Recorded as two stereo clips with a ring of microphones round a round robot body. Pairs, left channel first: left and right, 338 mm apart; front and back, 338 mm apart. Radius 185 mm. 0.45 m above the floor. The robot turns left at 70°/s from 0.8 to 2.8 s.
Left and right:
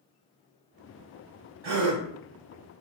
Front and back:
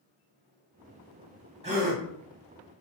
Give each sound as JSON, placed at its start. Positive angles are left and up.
{"t": 1.6, "sound": "a gasp", "azimuth_deg": -105, "distance_m": 1.1}